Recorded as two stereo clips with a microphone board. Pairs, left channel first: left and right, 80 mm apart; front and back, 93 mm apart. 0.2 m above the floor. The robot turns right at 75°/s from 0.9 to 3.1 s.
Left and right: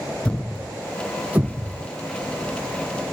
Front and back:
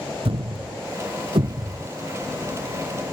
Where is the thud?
165° left; by 1.9 s 120° right.